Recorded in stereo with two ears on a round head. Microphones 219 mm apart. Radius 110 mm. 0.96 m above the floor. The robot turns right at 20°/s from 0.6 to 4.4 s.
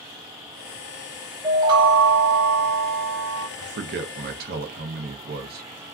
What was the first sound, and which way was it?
A chime, 160° right.